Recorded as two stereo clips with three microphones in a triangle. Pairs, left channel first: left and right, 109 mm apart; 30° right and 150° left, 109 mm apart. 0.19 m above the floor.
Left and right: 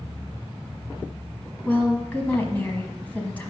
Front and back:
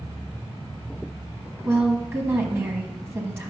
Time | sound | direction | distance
1.6 | a woman speaking | 140° left | 1.0 m